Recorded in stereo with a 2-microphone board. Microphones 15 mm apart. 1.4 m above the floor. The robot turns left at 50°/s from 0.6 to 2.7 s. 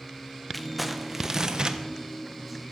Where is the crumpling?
10° left, 1.1 m; by 1.8 s 50° right, 1.1 m.